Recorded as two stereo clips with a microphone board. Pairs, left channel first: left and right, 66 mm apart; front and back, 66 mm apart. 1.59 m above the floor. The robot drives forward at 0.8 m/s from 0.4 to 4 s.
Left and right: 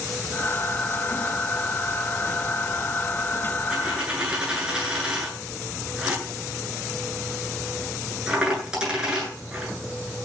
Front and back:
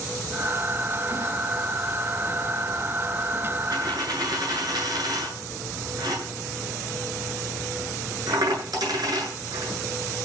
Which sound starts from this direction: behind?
A dropped coin, at 3.7 s.